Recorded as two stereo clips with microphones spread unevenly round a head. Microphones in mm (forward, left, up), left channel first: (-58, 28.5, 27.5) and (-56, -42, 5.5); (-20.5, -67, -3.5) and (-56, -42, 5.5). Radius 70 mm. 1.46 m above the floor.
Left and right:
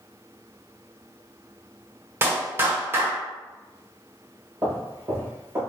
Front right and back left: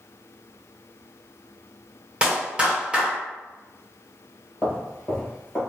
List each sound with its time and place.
2.2 s a clap: 150° right, 1.1 m
4.6 s footsteps: 155° right, 1.5 m